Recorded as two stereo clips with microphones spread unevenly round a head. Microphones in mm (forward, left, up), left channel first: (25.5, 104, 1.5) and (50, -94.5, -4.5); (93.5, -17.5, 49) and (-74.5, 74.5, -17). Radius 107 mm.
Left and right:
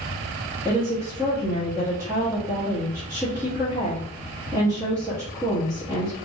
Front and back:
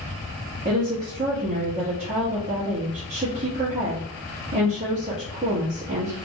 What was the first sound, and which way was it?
A woman speaking, 160° right.